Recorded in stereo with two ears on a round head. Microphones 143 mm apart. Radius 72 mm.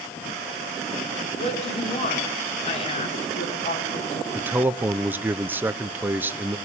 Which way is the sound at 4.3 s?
10° right (ahead or behind).